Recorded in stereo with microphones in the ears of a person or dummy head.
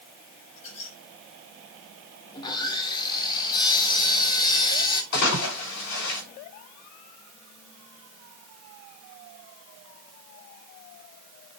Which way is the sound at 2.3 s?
30° left (ahead or behind).